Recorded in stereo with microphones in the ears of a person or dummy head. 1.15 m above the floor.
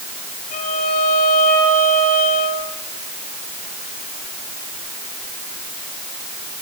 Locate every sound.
0.5 s a violin: 60° left (ahead or behind), 5 m